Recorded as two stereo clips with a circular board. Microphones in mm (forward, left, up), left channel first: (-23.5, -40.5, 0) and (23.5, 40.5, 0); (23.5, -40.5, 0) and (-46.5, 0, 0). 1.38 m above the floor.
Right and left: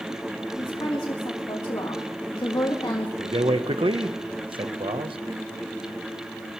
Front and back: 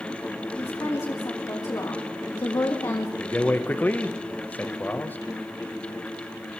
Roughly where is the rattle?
I don't hear a rattle.